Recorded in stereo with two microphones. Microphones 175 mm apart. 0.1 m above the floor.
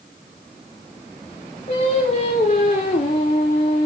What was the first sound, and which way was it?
Singing, 40° left (ahead or behind).